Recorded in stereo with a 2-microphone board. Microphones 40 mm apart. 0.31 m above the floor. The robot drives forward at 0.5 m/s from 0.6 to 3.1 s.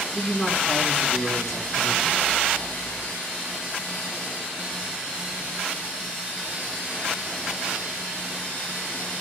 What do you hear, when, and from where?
0.1 s a man speaking: centre (ahead or behind), 3.5 m; by 2.2 s 5° left (ahead or behind), 2.5 m